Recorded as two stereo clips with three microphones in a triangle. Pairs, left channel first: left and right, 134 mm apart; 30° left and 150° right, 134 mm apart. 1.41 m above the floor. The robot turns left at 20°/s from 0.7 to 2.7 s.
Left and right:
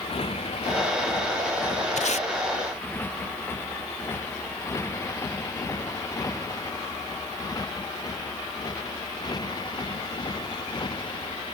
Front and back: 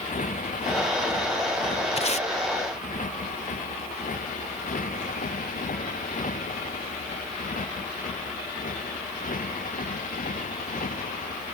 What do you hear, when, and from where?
0.0 s a motorcycle: 45° left; by 11.6 s 35° left
2.0 s tape being pulled: 65° left; by 2.3 s 60° left